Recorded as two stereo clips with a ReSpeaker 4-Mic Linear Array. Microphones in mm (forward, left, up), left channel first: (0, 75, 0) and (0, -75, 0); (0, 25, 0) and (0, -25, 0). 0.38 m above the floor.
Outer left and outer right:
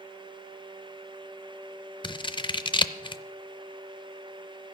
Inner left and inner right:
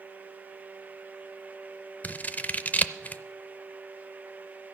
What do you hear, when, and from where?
2.0 s scissors: 35° left (ahead or behind), 0.5 m